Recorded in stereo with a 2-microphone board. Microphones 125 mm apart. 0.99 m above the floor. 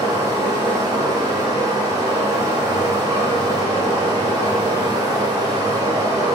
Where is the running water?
35° right (ahead or behind), 1.4 m.